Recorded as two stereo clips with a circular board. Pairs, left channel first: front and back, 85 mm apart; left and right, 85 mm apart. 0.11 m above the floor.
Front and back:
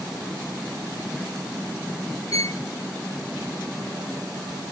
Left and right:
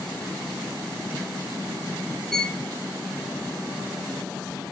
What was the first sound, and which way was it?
A violin, 10° left.